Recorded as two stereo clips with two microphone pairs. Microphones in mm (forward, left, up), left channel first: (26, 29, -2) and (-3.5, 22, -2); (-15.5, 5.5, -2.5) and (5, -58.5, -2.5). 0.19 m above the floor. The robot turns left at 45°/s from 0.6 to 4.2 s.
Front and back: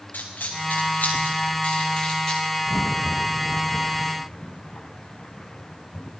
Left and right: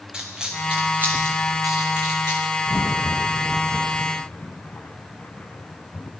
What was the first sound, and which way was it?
A dropped coin, 5° left.